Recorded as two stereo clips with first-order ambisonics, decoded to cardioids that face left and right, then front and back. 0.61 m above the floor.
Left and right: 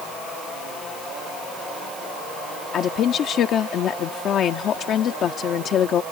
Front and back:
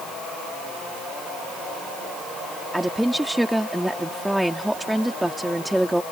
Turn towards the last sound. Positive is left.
turn(degrees=95)